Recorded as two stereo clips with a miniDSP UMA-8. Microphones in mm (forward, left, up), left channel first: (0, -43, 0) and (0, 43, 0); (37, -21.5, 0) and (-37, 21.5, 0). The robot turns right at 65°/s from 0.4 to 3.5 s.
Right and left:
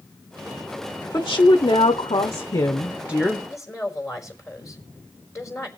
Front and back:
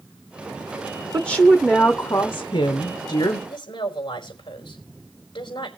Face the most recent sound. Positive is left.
turn(degrees=-35)